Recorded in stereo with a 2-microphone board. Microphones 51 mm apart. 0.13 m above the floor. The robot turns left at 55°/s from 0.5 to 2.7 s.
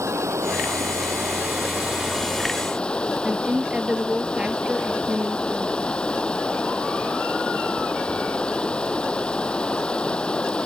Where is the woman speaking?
20° right (ahead or behind).